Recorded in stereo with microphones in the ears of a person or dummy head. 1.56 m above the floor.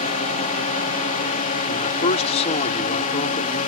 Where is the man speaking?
40° left (ahead or behind).